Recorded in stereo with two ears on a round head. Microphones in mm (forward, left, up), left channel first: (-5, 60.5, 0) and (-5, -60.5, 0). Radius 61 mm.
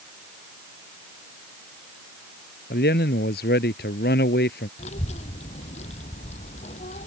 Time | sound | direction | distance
2.7 | a man speaking | 80° left | ?
4.8 | a child speaking | 55° left (ahead or behind) | ?